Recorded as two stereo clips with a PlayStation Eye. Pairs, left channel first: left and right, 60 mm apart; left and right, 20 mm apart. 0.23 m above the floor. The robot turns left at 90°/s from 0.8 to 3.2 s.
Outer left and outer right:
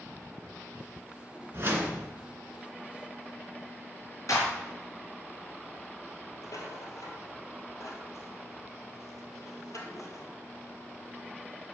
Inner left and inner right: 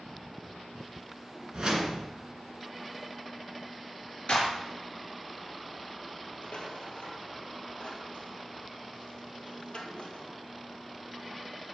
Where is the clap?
60° left (ahead or behind), 3.5 m.